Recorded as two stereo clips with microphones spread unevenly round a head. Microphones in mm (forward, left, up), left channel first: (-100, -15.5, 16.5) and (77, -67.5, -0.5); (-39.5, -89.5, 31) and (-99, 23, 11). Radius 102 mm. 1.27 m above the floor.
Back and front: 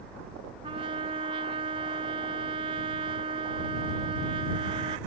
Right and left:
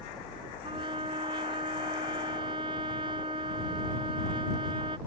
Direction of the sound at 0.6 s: 50° left.